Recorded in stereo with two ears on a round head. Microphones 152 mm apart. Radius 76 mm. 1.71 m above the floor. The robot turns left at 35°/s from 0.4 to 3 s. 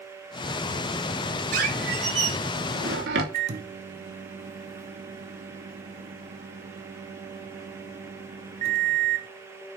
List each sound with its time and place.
1.5 s a squeak: 50° right, 2.5 m; by 3.2 s 100° right, 2.5 m
3.3 s a microwave: 40° right (ahead or behind), 1.1 m